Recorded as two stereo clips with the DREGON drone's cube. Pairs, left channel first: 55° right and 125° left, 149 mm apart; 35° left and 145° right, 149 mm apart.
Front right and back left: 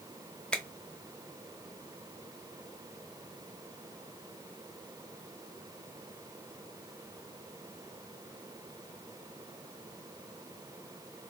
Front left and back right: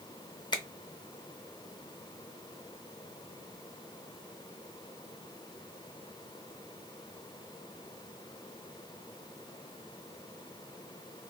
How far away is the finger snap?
About 0.7 m.